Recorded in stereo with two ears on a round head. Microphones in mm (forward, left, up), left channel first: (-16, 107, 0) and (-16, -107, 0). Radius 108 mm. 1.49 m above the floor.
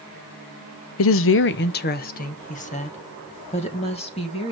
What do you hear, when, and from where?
1.0 s a woman speaking: 65° left (ahead or behind), 0.6 m; by 4.5 s 25° left (ahead or behind), 2.5 m